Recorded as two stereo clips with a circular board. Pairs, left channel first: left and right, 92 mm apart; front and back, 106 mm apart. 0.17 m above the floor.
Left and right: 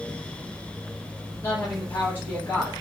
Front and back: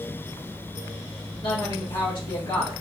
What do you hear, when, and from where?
1.4 s a woman speaking: 35° left, 2 m